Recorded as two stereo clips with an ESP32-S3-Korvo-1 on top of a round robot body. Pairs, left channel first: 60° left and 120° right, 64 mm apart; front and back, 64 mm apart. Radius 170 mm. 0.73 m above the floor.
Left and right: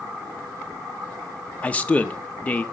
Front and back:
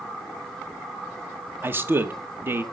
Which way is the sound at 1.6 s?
130° left.